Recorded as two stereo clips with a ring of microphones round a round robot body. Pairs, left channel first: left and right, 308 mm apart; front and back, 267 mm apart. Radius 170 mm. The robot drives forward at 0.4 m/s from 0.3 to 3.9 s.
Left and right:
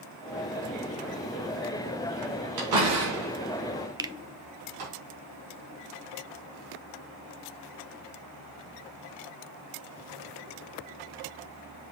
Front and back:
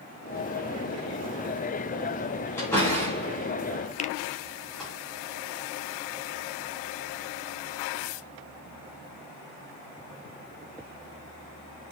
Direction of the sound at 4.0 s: 25° right.